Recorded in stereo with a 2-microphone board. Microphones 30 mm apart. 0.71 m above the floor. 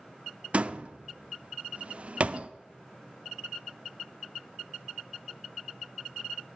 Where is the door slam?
45° right (ahead or behind), 0.6 m.